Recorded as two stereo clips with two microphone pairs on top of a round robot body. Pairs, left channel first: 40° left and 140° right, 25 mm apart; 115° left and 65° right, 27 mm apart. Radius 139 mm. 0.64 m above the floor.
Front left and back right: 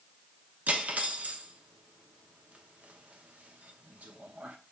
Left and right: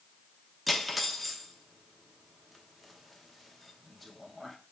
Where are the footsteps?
I don't hear footsteps.